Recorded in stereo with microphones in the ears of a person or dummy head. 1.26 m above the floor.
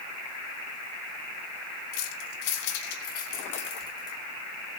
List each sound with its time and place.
1.9 s keys jangling: 85° left, 2 m; by 4.2 s 15° left (ahead or behind), 2.5 m